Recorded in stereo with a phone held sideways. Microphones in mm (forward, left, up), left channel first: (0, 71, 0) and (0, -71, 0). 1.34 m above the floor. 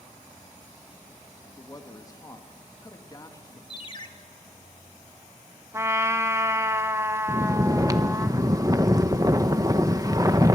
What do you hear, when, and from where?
1.4 s a man speaking: 25° left (ahead or behind), 1.8 m
3.7 s a ringtone: 35° left (ahead or behind), 1.4 m
5.7 s a trumpet: 20° right (ahead or behind), 0.9 m
7.3 s snoring: 25° right (ahead or behind), 0.7 m